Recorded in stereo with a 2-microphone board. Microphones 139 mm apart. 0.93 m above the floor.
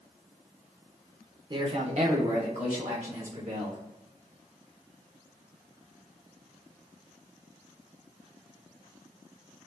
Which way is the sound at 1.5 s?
30° right (ahead or behind).